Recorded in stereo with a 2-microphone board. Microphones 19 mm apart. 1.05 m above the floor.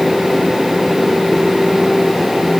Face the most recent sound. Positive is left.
No sound to turn to.